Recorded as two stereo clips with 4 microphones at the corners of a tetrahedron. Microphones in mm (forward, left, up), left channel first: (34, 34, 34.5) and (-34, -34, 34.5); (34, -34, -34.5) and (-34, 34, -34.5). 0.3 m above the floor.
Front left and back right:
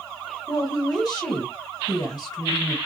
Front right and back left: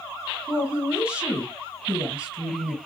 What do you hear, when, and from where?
0.5 s a woman speaking: 65° left, 1.8 m